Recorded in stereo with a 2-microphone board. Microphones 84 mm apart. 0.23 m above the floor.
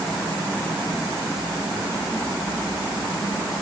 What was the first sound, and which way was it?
Only background noise.